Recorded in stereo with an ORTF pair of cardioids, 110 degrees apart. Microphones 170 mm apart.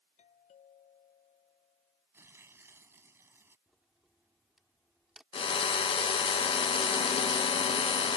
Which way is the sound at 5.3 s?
35° left.